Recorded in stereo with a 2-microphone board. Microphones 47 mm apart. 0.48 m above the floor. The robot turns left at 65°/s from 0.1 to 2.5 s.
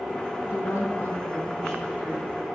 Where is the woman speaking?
100° left, 3.5 m; by 2.5 s 35° right, 3.5 m.